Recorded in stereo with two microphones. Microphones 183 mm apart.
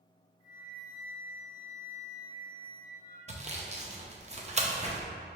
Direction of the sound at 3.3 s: 40° right (ahead or behind).